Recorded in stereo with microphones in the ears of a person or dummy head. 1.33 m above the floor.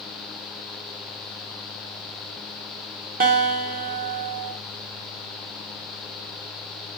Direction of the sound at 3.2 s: 45° right (ahead or behind).